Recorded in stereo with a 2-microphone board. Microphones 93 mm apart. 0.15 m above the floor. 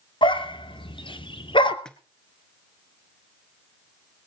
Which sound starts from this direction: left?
A dog barking, at 0.2 s.